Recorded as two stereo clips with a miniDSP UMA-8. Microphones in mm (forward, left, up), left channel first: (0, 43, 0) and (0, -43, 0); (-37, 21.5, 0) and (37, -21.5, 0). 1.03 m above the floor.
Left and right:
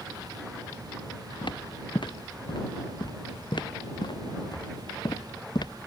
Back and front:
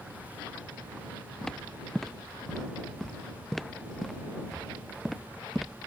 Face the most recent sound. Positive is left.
turn(degrees=60)